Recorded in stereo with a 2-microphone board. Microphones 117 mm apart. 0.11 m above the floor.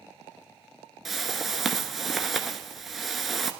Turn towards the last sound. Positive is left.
turn(degrees=0)  # may be behind; listen again after turning